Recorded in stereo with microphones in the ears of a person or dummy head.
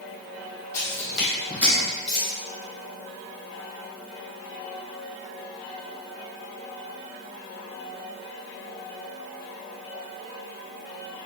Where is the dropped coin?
5° left (ahead or behind), 1.6 m.